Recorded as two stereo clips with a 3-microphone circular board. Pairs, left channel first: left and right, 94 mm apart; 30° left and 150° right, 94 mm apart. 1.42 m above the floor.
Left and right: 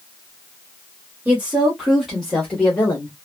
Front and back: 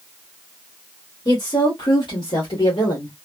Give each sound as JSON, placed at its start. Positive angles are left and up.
{"t": 1.2, "sound": "a woman speaking", "azimuth_deg": -20, "distance_m": 1.5}